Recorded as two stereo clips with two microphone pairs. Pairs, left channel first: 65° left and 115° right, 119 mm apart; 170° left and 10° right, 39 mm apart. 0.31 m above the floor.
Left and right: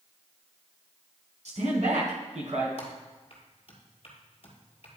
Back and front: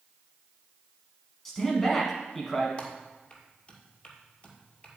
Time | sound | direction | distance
1.4 | a man speaking | 110° right | 2.5 m
2.8 | typing on a keyboard | 105° left | 1.8 m